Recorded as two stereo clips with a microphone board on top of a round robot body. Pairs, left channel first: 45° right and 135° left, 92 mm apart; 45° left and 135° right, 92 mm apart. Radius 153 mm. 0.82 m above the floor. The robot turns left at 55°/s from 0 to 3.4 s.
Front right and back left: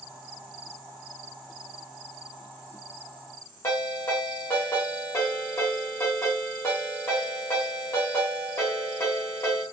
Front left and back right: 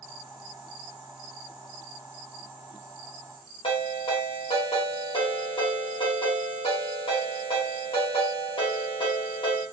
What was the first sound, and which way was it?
A ringtone, 20° left.